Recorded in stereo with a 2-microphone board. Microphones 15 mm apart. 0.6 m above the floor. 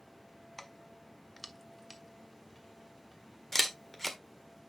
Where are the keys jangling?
10° left (ahead or behind), 0.8 m; by 3.4 s centre (ahead or behind), 3 m.